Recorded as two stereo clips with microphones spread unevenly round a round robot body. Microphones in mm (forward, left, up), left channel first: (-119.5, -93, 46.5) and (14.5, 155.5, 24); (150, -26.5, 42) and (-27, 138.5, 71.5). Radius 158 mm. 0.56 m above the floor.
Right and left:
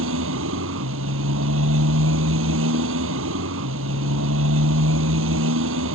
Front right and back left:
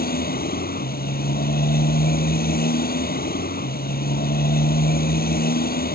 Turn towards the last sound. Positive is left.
turn(degrees=10)